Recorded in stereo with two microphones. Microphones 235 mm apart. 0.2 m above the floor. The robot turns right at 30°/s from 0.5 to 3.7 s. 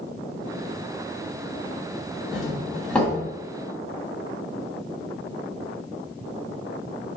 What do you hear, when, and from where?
2.3 s a doorbell: 5° right (ahead or behind), 1.7 m; by 3.2 s 5° left (ahead or behind), 1.7 m